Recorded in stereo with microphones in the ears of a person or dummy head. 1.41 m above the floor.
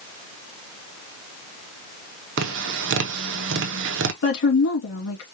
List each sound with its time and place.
2.4 s tapping: 65° right (ahead or behind), 0.8 m
4.2 s a woman speaking: 75° left (ahead or behind), 2.5 m